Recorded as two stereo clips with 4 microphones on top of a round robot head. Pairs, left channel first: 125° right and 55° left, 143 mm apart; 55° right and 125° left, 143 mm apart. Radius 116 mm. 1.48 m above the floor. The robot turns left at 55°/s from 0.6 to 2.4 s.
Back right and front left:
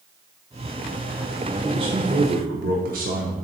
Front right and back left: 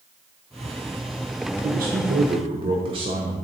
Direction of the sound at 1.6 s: 115° left.